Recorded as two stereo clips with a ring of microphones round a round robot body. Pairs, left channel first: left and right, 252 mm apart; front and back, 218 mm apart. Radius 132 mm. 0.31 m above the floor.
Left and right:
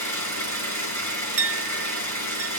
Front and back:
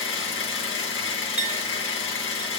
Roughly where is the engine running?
Ahead.